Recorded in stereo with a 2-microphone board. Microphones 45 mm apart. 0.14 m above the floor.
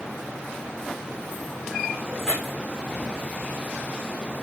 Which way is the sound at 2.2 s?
5° right (ahead or behind).